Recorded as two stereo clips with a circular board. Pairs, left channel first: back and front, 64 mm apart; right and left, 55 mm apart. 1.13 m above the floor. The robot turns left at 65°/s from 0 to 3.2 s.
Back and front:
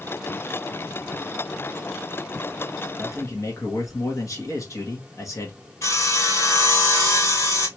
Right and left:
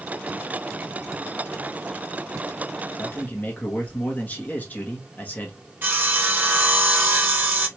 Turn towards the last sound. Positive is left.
turn(degrees=145)